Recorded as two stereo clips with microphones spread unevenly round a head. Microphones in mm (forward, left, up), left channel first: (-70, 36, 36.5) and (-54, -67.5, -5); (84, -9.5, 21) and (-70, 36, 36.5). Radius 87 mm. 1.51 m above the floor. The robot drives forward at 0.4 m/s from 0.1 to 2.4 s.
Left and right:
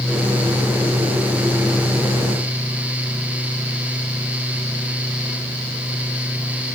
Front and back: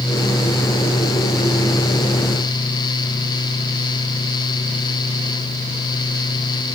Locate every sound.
Only background noise.